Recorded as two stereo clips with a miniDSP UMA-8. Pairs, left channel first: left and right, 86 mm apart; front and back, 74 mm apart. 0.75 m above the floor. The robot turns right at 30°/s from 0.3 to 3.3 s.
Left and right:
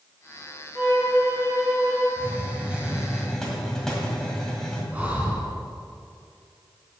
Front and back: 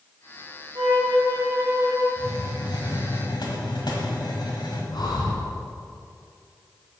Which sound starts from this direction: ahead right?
A hiss, at 2.2 s.